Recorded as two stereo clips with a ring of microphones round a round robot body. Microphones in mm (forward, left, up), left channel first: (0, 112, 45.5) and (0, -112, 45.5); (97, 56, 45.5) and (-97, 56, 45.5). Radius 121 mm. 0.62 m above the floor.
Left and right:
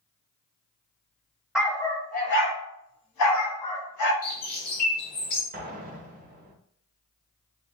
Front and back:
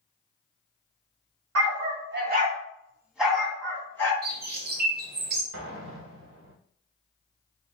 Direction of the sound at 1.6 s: 175° right.